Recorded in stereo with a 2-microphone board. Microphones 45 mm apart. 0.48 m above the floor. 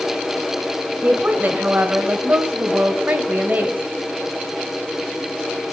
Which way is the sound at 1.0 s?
40° right (ahead or behind).